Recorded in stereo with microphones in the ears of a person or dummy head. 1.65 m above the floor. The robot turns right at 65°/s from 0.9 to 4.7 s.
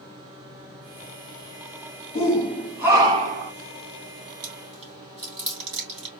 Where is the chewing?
40° right (ahead or behind), 3 m; by 6.1 s 25° right (ahead or behind), 3 m.